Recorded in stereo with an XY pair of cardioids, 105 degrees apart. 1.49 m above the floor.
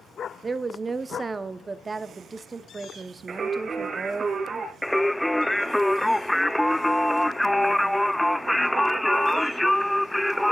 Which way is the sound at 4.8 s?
5° left.